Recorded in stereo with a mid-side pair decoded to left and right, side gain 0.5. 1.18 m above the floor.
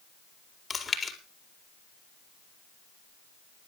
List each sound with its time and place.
0.7 s chewing: 30° left, 4.5 m